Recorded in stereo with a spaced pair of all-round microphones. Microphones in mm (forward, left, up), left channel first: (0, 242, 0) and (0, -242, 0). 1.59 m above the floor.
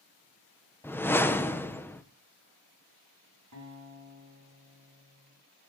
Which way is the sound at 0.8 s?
5° left (ahead or behind).